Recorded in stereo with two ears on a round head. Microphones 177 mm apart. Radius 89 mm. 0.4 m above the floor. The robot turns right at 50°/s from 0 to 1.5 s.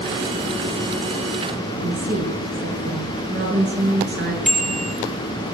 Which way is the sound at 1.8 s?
40° right (ahead or behind).